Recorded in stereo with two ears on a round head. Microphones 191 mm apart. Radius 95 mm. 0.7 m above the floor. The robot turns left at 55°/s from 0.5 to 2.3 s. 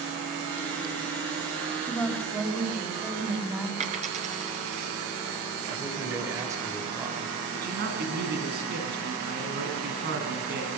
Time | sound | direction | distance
1.8 | a woman speaking | 15° left (ahead or behind) | 4.5 m
3.8 | a dropped coin | 35° right (ahead or behind) | 5 m
5.7 | a man speaking | 15° right (ahead or behind) | 3.5 m
7.5 | a man speaking | 50° right (ahead or behind) | 6 m